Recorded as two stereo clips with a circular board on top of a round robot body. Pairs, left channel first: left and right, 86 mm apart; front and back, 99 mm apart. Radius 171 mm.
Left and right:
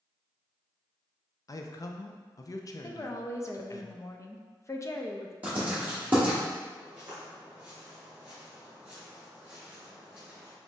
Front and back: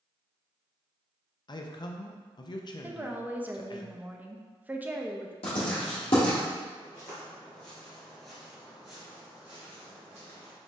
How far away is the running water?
No running water in this recording.